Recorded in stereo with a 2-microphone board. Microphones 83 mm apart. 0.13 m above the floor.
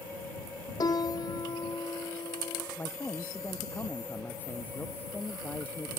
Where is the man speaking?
20° left (ahead or behind).